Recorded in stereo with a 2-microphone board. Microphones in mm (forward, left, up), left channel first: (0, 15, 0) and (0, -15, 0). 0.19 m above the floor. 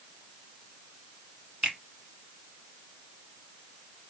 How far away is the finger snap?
About 1.2 m.